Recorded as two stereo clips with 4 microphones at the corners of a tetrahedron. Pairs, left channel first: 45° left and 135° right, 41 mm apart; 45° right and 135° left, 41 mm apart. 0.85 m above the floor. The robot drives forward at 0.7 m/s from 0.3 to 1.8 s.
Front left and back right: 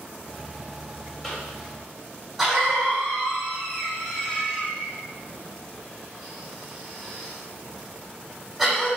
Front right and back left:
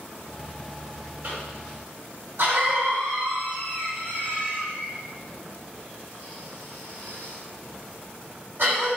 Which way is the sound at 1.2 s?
125° left.